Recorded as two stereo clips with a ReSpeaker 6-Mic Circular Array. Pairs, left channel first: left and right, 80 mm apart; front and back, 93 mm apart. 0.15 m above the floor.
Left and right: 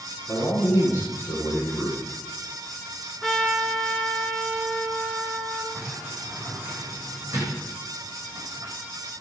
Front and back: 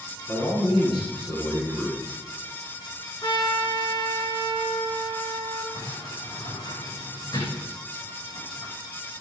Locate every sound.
0.3 s a man speaking: 35° left, 5.5 m
3.2 s a trumpet: straight ahead, 2 m
5.7 s a sliding door: 35° right, 7.5 m